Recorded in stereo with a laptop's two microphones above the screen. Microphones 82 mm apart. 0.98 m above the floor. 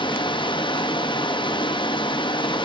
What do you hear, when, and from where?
0.0 s running water: 75° left (ahead or behind), 0.8 m